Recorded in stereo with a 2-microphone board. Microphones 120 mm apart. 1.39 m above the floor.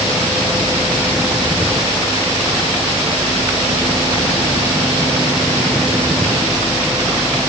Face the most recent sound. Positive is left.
No sound to turn to.